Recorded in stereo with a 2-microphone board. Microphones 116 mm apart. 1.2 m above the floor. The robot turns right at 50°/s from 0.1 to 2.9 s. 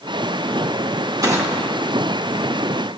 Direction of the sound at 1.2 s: 35° right (ahead or behind).